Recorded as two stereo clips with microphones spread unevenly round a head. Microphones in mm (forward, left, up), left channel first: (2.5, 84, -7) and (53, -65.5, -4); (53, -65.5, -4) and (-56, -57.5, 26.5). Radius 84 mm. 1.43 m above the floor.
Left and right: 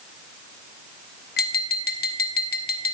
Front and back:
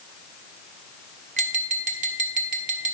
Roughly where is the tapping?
Behind left.